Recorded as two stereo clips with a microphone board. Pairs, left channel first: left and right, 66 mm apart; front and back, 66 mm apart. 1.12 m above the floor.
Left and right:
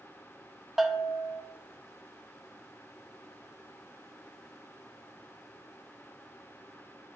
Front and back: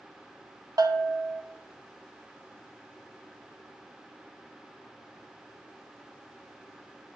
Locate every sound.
0.8 s a bell: 175° right, 0.6 m